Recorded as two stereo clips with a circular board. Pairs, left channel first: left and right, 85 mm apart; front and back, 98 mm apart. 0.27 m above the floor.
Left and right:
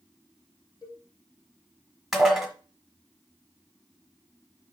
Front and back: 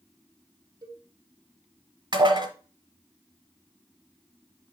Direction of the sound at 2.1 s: 175° right.